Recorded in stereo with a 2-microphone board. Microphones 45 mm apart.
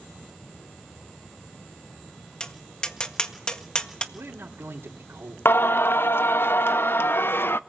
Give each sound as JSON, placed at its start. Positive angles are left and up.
{"t": 2.4, "sound": "tapping", "side_deg": 20, "distance_m": 1.6}
{"t": 4.1, "sound": "a man speaking", "side_deg": -75, "distance_m": 3.5}
{"t": 5.5, "sound": "singing", "side_deg": 55, "distance_m": 0.6}